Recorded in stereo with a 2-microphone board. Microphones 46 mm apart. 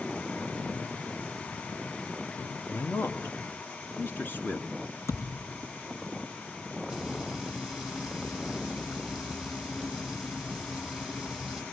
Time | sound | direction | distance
2.7 | a man speaking | 60° left (ahead or behind) | 2.5 m
5.1 | a thud | 85° left | 4.5 m
6.9 | frying | centre (ahead or behind) | 8.5 m